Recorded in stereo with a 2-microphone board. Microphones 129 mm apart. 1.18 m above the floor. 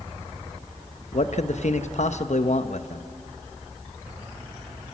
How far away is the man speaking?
About 1.0 m.